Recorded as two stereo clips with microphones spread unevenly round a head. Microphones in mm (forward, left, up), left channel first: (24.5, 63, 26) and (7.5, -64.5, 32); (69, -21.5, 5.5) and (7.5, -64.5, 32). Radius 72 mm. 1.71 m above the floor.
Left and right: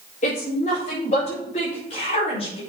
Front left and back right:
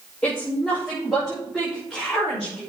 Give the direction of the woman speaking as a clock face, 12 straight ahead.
8 o'clock.